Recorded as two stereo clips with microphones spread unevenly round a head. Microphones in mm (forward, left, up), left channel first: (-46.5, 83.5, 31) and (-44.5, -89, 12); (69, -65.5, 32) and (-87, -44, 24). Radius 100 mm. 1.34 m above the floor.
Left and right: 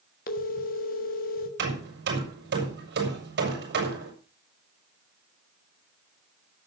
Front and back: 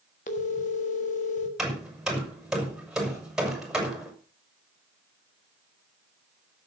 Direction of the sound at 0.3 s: 45° left.